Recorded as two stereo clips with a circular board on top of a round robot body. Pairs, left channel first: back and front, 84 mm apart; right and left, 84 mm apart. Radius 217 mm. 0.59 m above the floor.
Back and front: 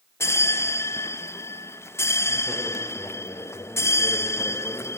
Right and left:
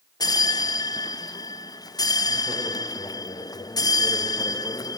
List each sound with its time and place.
0.2 s a bell: 125° right, 0.5 m